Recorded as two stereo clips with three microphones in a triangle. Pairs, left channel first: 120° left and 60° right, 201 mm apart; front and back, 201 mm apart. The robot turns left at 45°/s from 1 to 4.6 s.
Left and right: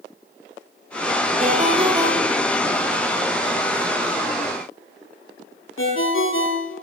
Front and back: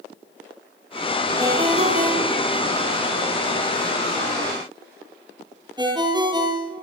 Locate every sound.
1.4 s a ringtone: 105° right, 9 m; by 6.8 s 110° left, 9 m